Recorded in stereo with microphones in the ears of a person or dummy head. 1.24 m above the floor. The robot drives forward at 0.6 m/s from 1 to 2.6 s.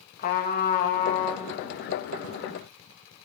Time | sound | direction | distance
0.2 | a trumpet | 50° left (ahead or behind) | 1.3 m